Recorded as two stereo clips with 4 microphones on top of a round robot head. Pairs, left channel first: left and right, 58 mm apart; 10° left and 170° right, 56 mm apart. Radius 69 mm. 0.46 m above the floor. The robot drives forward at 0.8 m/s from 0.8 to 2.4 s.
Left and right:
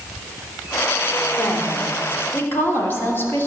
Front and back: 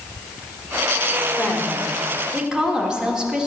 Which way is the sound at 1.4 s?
70° left.